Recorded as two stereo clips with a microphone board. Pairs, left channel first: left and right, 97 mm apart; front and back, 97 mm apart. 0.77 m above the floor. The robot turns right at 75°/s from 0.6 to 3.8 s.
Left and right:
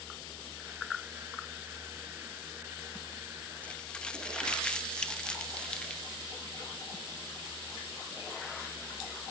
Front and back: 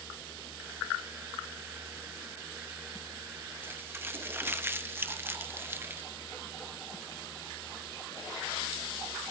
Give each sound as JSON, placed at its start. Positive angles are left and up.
{"t": 3.6, "sound": "crumpling", "azimuth_deg": 145, "distance_m": 1.1}